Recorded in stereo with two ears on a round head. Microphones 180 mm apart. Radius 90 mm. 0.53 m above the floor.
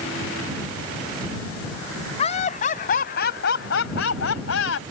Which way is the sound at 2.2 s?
35° left (ahead or behind).